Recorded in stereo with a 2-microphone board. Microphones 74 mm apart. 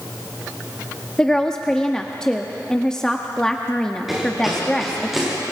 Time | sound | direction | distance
1.2 | a woman speaking | 10° left (ahead or behind) | 0.9 m
4.1 | running footsteps | 5° right (ahead or behind) | 9.5 m